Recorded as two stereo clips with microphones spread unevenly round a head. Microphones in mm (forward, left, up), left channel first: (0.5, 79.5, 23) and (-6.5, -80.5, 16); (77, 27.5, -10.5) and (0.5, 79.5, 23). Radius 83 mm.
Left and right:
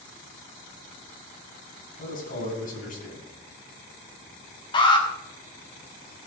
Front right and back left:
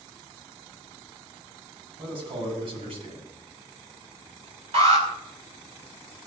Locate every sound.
2.0 s a man speaking: 130° left, 7.5 m
4.7 s an alarm: 150° left, 4.5 m